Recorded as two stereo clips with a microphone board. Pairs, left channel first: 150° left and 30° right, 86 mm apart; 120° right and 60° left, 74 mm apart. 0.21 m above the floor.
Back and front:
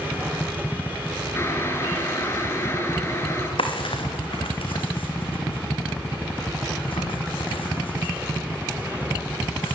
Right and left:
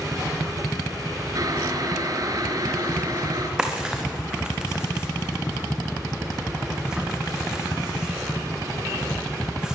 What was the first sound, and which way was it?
Boiling, 90° left.